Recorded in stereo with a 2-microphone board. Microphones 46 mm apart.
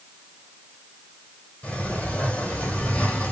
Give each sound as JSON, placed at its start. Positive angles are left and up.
{"t": 1.6, "sound": "a sliding door", "side_deg": 35, "distance_m": 3.5}